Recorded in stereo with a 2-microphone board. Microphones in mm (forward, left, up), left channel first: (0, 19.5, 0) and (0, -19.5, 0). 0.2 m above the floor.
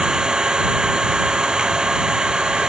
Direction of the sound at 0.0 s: 15° right (ahead or behind).